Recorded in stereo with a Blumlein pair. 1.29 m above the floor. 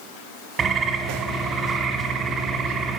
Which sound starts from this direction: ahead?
A bird, at 0.6 s.